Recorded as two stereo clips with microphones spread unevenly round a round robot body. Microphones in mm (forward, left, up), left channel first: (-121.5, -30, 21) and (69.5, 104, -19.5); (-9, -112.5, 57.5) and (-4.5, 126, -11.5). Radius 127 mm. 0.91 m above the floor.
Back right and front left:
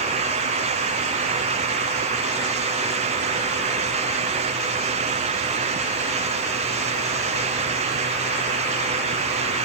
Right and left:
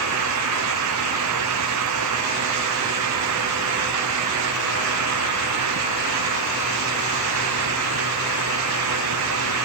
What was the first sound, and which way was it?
Only background noise.